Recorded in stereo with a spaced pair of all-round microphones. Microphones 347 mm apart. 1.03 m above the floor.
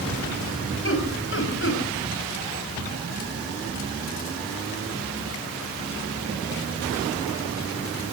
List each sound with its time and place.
0.8 s laughter: 35° left (ahead or behind), 5.5 m